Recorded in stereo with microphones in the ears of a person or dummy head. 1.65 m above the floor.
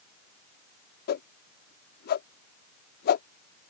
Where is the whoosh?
50° left (ahead or behind).